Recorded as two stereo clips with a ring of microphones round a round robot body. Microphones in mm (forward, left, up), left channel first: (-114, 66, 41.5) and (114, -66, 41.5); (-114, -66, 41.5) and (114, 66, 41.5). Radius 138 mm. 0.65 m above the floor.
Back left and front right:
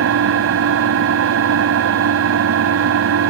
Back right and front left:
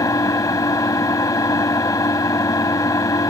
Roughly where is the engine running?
Right.